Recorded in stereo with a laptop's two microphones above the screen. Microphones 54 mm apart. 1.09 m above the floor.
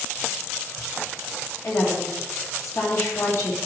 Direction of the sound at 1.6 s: 60° left (ahead or behind).